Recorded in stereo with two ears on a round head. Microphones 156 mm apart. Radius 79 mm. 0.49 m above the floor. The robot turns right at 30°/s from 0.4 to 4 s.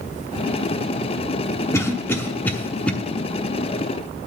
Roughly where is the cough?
Centre.